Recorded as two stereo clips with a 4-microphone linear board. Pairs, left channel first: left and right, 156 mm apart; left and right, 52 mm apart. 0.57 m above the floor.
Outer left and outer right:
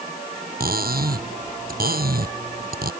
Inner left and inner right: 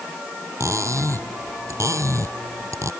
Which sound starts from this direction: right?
Cutlery clinking, at 0.6 s.